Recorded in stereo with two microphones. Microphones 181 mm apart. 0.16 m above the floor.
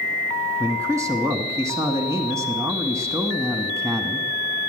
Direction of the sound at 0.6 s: 15° right (ahead or behind).